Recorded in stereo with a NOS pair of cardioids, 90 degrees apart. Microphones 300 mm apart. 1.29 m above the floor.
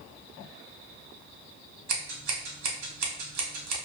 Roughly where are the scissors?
Ahead right.